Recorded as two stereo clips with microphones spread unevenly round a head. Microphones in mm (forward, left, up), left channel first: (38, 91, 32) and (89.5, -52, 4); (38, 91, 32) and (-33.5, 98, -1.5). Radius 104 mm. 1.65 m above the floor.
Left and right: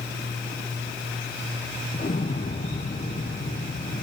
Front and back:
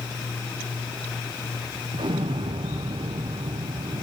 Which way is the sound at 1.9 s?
155° left.